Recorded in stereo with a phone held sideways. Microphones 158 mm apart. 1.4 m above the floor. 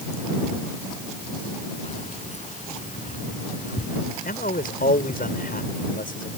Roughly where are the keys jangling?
Left.